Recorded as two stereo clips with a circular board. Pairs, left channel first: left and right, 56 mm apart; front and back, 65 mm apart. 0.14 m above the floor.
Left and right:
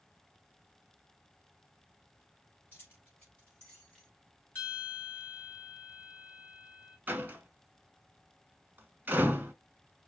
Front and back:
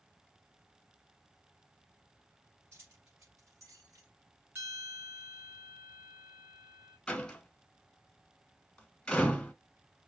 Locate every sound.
2.7 s keys jangling: 140° left, 2.5 m; by 4.1 s 170° left, 2 m
4.5 s a bell: 135° left, 2.5 m
7.1 s a door slam: 70° right, 1.1 m